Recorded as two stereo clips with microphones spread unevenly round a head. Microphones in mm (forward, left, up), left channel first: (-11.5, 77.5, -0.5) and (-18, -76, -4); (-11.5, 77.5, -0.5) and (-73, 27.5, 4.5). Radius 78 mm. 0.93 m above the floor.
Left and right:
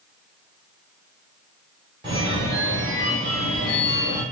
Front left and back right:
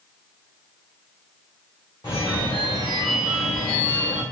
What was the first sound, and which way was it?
A phone ringing, 30° right.